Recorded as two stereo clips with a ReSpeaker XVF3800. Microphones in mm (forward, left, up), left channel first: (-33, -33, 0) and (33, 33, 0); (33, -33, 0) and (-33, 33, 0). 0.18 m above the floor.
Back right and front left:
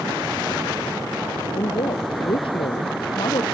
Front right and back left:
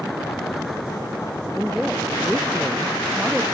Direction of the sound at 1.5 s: 140° right.